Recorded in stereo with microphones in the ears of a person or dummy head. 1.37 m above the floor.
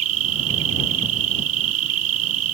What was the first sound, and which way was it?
An insect, 70° right (ahead or behind).